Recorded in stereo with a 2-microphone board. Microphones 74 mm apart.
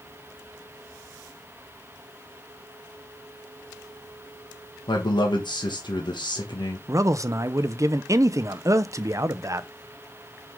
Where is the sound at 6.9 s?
40° right (ahead or behind), 0.5 m.